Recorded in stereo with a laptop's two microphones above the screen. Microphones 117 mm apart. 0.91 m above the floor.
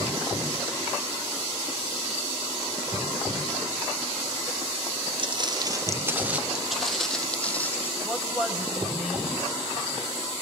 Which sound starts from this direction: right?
Footsteps, at 5.2 s.